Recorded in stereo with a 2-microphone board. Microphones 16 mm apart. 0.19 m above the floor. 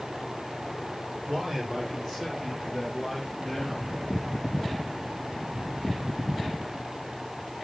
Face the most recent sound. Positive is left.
turn(degrees=5)  # may be behind; listen again after turning